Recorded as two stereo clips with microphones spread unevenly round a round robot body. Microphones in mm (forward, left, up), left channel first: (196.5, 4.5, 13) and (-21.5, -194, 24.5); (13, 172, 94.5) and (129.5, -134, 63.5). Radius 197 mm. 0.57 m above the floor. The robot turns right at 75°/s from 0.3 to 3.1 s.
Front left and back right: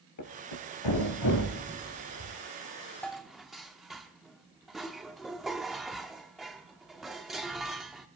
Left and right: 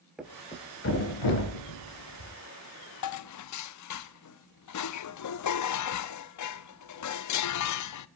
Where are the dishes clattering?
125° left, 0.7 m; by 8.1 s 130° left, 0.7 m.